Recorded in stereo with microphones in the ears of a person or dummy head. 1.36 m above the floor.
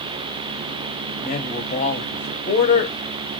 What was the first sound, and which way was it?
A man speaking, 35° left (ahead or behind).